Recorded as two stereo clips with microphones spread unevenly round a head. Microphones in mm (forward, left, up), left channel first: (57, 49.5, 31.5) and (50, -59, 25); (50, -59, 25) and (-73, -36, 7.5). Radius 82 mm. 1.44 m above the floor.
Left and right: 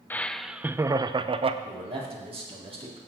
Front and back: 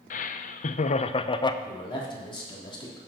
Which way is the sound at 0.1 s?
15° left.